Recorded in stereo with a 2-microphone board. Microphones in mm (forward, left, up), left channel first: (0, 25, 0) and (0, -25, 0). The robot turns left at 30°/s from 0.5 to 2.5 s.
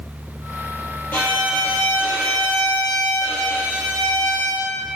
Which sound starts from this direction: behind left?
A violin, at 1.1 s.